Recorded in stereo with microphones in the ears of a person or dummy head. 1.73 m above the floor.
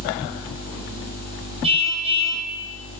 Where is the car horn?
30° right (ahead or behind), 9.5 m.